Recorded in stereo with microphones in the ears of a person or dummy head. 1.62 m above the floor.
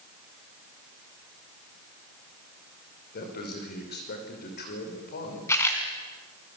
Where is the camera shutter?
15° left (ahead or behind), 4 m.